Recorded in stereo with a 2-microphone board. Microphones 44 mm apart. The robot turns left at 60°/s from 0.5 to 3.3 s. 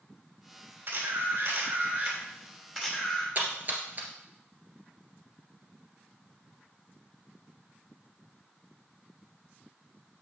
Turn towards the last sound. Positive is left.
turn(degrees=-45)  # may be behind; listen again after turning